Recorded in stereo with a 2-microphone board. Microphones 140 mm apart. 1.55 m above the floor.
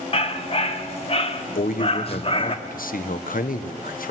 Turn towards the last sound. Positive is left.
turn(degrees=80)